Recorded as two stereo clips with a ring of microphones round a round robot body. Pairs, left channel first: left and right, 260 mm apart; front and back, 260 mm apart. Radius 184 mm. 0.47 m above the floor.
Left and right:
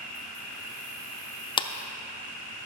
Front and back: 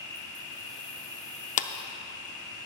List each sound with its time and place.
0.0 s an insect: 65° left, 5 m
1.6 s a clap: 30° left, 0.5 m